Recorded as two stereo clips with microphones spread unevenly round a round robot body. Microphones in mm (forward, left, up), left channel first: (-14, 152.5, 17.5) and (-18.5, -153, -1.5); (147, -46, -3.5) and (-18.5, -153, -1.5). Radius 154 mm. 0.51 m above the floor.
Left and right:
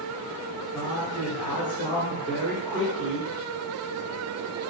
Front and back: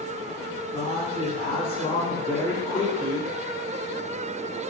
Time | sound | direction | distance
0.7 | a man speaking | 20° left | 1.3 m